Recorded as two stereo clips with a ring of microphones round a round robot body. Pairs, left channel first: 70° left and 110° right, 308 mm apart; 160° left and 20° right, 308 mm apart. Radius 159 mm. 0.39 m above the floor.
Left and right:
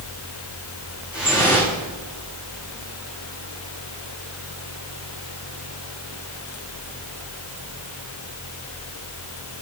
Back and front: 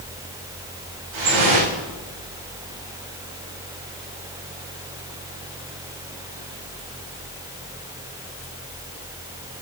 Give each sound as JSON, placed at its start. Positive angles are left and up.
{"t": 1.1, "sound": "dripping", "azimuth_deg": -25, "distance_m": 8.0}